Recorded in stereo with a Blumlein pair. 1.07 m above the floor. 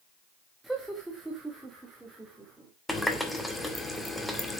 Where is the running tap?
5° left, 1.7 m.